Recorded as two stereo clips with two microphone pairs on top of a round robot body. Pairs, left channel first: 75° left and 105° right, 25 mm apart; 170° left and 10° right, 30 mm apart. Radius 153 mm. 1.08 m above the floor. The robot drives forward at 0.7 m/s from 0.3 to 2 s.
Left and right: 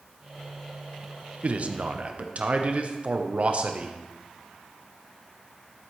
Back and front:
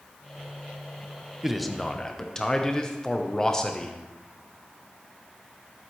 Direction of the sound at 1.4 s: 100° right.